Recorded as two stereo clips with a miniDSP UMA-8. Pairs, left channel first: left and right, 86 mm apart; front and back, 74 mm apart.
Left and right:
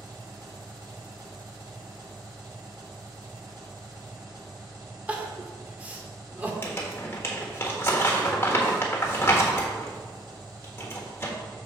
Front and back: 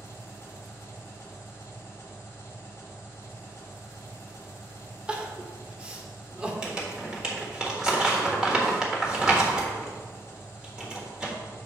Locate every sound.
0.0 s an engine running: 50° right, 1.8 m
5.1 s crying: 135° right, 1.0 m
6.6 s crumpling: 110° left, 1.4 m